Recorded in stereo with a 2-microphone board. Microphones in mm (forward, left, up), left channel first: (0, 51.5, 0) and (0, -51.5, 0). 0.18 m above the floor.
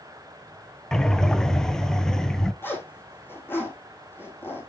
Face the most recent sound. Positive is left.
turn(degrees=20)  # may be behind; listen again after turning